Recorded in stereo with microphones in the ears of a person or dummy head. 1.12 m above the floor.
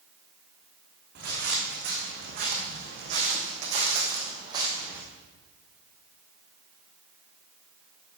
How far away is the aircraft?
I don't hear an aircraft.